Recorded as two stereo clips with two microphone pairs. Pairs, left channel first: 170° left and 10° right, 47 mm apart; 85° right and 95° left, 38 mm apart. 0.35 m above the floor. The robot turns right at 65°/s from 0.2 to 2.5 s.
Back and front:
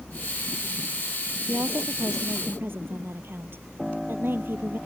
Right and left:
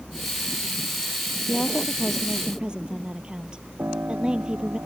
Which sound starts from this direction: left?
A piano, at 3.8 s.